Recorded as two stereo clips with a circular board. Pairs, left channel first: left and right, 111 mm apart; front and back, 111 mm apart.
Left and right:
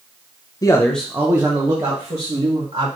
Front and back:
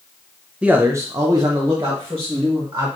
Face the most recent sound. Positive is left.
turn(degrees=-125)